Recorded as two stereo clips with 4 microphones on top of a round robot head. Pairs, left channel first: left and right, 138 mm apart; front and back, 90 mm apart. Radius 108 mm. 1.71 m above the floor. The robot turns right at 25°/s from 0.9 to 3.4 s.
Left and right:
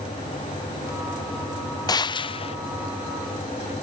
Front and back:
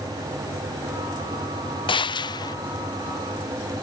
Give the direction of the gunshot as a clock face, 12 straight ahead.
11 o'clock.